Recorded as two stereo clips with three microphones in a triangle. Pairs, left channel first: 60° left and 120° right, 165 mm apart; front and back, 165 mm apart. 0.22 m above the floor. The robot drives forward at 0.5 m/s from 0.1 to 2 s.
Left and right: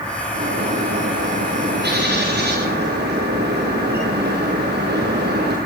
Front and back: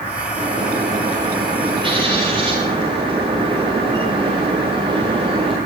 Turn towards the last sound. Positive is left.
turn(degrees=-120)